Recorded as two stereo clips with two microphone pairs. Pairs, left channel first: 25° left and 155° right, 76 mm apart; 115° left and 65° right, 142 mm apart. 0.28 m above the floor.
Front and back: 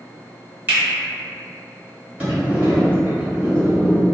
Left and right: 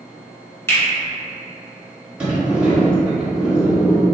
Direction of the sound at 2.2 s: 135° right.